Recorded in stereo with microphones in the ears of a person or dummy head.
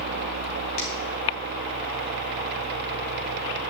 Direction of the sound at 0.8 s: 85° left.